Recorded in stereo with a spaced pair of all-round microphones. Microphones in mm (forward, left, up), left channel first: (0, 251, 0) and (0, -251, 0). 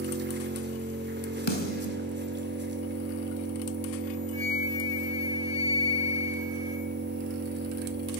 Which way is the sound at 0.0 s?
20° right (ahead or behind).